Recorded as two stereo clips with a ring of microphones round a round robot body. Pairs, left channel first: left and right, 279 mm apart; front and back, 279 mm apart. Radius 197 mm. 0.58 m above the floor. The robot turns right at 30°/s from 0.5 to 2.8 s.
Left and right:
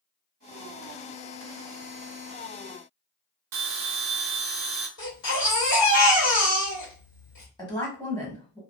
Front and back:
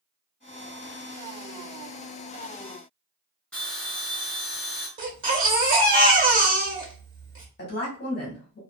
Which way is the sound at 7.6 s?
20° left.